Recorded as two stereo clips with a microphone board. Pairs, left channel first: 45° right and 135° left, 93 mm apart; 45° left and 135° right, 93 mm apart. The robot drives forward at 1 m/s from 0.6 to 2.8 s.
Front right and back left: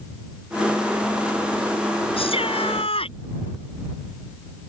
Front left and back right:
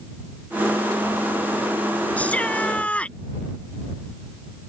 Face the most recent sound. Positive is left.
turn(degrees=-30)